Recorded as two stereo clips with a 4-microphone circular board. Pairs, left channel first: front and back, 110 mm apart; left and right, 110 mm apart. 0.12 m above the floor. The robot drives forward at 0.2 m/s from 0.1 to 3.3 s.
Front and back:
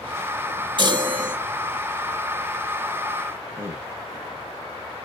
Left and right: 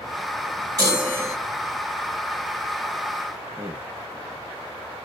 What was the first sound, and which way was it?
A chime, 145° right.